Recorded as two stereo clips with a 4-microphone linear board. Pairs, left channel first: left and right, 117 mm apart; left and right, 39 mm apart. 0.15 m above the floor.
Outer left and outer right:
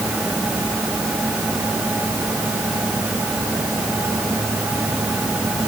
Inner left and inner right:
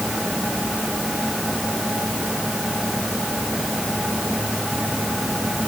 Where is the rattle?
No rattle in this recording.